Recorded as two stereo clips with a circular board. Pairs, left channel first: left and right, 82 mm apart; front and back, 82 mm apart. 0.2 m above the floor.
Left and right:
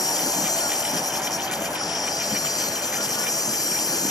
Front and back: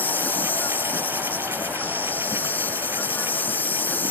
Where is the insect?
65° left.